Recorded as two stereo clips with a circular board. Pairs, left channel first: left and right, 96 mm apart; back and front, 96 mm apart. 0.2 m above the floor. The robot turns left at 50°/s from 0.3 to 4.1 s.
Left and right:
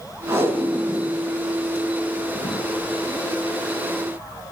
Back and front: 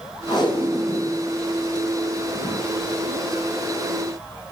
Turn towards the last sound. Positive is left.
turn(degrees=25)